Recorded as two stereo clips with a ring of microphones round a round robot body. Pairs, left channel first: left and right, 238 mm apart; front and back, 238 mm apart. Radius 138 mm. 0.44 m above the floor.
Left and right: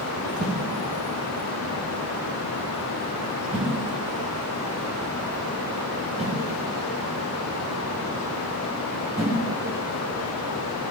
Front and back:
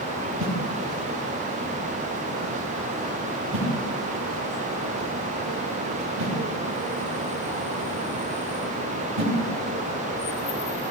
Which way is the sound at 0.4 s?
155° right.